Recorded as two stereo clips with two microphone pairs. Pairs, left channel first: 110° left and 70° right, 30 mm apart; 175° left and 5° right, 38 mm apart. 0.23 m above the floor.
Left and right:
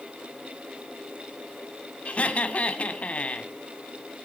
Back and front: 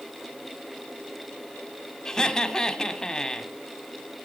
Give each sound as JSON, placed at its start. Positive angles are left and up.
{"t": 2.0, "sound": "laughter", "azimuth_deg": 105, "distance_m": 1.5}